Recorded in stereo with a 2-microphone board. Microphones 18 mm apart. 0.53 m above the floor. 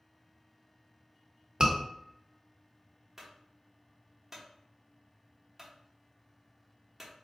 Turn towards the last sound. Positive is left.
turn(degrees=-15)  # may be behind; listen again after turning